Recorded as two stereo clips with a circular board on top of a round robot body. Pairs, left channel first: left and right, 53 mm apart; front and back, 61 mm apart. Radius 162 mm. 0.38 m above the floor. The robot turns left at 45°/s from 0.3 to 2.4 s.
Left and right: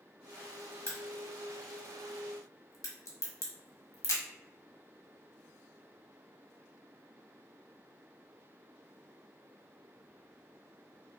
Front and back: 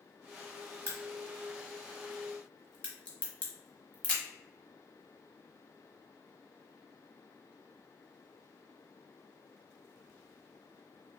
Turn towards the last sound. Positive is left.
turn(degrees=70)